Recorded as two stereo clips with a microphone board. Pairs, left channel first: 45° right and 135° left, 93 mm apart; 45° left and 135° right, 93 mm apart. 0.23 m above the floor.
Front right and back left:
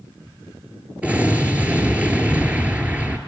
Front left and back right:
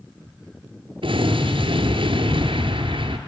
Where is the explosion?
150° right, 1.5 m.